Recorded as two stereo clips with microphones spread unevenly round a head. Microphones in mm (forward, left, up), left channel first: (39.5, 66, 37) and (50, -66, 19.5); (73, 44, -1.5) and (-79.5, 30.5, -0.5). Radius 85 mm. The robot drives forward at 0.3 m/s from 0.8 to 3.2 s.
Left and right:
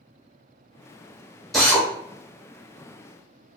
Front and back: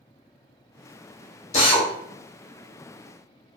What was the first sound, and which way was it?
A drill, 15° left.